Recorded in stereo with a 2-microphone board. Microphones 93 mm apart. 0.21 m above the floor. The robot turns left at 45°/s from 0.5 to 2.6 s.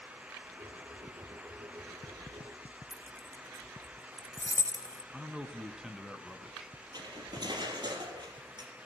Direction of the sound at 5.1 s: 5° right (ahead or behind).